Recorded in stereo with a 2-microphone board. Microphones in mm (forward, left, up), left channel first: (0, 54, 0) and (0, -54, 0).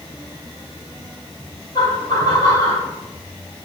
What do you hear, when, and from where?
1.8 s laughter: 45° left (ahead or behind), 3.5 m; by 2.9 s 30° left (ahead or behind), 3.5 m